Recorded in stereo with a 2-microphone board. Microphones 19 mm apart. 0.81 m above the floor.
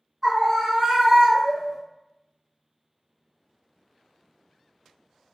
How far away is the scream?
About 0.8 m.